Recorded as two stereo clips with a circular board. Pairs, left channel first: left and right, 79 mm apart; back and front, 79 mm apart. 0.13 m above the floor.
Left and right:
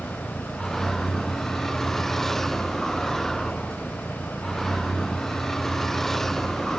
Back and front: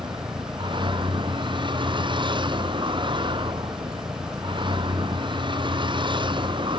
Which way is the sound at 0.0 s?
5° left.